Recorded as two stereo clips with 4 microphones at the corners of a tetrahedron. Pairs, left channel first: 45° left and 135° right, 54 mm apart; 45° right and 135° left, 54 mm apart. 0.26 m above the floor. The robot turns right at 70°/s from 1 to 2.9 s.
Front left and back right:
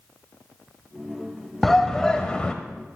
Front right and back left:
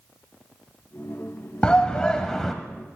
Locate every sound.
1.6 s a shout: 35° right, 0.9 m; by 2.5 s 30° left, 0.9 m